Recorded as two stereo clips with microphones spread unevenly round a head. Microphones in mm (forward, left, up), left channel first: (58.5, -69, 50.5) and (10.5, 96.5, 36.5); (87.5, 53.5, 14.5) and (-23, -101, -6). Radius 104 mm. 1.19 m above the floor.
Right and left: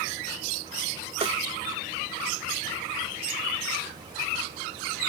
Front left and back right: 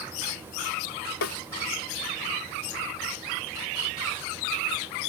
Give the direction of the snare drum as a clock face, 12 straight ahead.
10 o'clock.